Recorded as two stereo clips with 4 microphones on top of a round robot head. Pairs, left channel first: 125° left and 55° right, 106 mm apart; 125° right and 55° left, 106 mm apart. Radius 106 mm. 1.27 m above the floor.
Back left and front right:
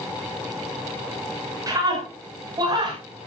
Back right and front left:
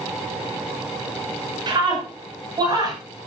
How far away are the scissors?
I don't hear scissors.